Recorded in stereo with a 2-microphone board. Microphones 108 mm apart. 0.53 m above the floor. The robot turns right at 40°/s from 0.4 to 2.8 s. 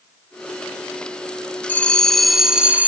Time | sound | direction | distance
1.7 | a bell | 160° left | 0.9 m